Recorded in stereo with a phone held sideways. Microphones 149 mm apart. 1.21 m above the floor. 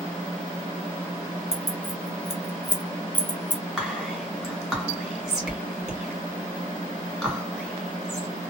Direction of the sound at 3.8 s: 5° right (ahead or behind).